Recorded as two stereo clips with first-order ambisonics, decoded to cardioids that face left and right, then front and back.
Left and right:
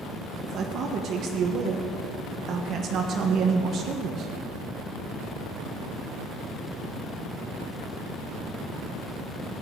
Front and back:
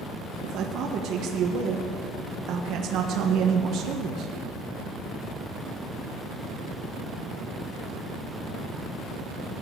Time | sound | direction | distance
0.4 | a man speaking | 140° right | 1.3 m